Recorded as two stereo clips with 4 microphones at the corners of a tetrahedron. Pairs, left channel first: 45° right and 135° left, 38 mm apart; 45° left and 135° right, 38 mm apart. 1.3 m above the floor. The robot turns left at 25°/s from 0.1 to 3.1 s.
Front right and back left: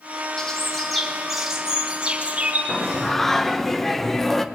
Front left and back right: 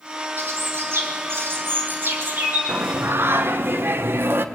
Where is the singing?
120° right, 1.2 m; by 4.5 s 130° right, 1.2 m.